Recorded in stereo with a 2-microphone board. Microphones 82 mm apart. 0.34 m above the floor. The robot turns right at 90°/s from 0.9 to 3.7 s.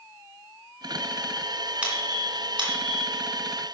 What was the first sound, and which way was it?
A squeak, 15° right (ahead or behind).